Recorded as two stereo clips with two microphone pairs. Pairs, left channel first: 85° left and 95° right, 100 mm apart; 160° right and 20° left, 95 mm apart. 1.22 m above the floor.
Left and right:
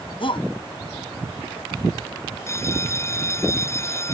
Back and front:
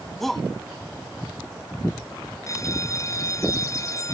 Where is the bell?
145° left.